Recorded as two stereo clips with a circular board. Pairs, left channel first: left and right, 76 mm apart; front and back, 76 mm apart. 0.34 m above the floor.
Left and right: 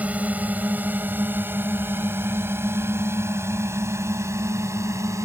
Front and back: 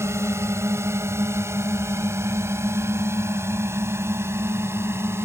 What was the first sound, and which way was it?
A drone, 150° right.